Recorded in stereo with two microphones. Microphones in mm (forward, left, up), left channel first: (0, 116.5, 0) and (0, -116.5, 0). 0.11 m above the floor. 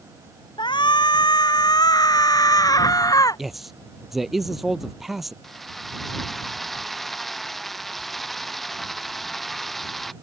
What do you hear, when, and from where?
0.6 s a shout: 20° left (ahead or behind); by 3.4 s 15° left (ahead or behind)
3.4 s a man speaking: centre (ahead or behind)
5.4 s a drill: centre (ahead or behind)